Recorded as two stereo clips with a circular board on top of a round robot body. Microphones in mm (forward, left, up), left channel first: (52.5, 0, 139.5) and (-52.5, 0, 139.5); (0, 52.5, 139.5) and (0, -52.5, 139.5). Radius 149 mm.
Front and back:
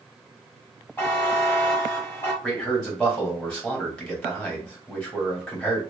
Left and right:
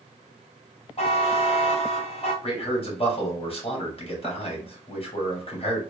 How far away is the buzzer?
About 1.7 m.